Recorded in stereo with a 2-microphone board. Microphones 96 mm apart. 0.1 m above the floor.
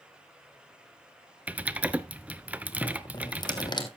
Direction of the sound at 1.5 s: 15° right (ahead or behind).